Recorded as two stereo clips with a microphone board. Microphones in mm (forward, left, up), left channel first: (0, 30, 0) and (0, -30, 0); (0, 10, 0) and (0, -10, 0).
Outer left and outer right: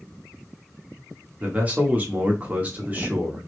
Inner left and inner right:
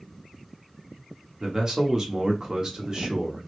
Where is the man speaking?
25° right (ahead or behind), 0.8 m.